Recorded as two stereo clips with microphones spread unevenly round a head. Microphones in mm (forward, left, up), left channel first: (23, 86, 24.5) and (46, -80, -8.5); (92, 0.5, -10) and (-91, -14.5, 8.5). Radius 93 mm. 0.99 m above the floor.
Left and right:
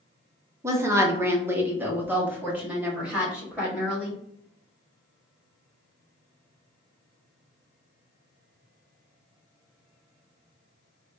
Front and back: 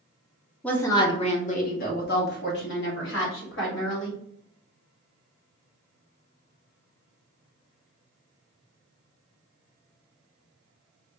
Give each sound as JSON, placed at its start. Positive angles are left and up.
{"t": 0.6, "sound": "a woman speaking", "azimuth_deg": -60, "distance_m": 0.7}